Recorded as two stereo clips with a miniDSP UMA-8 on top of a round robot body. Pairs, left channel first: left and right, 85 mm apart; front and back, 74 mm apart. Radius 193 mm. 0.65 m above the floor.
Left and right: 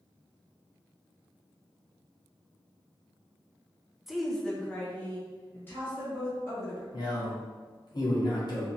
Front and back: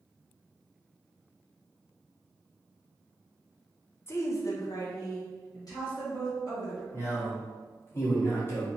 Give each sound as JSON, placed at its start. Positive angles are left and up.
{"t": 4.1, "sound": "a woman speaking", "azimuth_deg": -5, "distance_m": 0.8}
{"t": 6.9, "sound": "a man speaking", "azimuth_deg": 55, "distance_m": 1.5}